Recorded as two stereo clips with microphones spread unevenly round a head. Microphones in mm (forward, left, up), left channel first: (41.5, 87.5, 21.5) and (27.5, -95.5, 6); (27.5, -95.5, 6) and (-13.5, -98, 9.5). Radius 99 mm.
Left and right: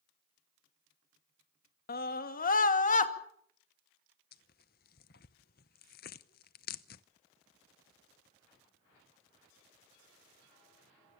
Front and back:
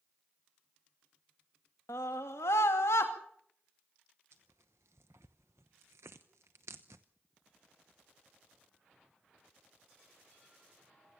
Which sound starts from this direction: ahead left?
A scream, at 1.9 s.